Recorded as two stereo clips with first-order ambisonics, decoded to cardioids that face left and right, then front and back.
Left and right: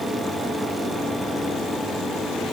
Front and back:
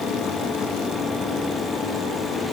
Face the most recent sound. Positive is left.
No sound to turn to.